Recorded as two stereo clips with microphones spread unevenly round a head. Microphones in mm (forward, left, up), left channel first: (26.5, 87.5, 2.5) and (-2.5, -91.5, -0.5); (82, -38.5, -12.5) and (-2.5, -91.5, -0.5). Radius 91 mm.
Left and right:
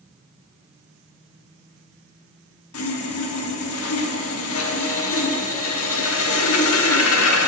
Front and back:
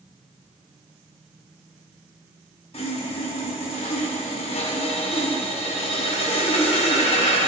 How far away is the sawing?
About 1.5 m.